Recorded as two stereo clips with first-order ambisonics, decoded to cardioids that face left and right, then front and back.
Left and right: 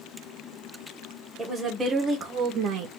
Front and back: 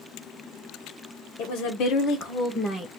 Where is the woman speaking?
5° right, 1.1 m; by 2.9 s 75° right, 0.8 m.